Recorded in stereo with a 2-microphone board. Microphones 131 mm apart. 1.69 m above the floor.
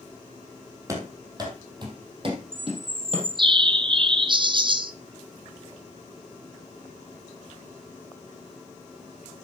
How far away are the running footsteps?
About 3 m.